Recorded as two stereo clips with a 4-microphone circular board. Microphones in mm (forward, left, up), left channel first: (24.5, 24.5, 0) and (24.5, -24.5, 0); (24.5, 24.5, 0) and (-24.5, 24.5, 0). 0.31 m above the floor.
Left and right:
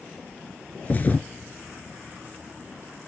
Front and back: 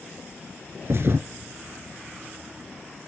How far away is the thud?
About 0.8 m.